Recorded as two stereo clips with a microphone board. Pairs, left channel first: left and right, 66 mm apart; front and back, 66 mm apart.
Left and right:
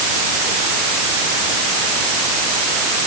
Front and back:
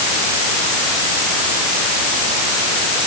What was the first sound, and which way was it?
Only background noise.